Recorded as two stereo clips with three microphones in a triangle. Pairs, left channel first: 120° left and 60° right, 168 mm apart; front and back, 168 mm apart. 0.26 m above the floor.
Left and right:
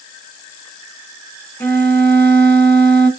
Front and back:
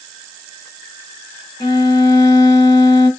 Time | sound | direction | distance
1.6 | a violin | 50° left | 0.9 m